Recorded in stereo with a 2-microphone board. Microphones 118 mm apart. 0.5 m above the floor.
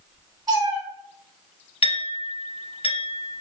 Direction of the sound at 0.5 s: 35° right (ahead or behind).